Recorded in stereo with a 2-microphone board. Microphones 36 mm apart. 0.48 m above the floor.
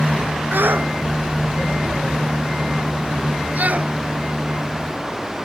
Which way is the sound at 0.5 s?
75° right (ahead or behind).